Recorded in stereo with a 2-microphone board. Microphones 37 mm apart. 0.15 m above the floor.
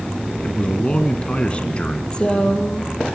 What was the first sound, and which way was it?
A man speaking, 30° left (ahead or behind).